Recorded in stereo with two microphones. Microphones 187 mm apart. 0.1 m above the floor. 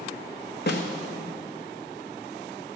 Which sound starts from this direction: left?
A snare drum, at 0.7 s.